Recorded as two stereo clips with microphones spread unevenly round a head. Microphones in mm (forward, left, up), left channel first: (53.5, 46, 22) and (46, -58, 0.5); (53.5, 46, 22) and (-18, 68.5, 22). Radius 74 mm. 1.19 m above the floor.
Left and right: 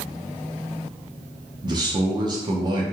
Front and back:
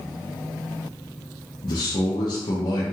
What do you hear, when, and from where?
1.6 s a man speaking: 55° right, 0.8 m